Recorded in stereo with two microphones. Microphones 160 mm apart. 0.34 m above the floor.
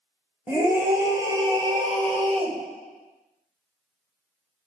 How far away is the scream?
About 1.6 m.